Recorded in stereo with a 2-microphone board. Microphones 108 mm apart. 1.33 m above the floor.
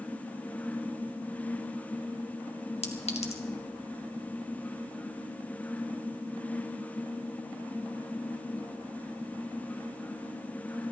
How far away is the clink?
About 1.5 m.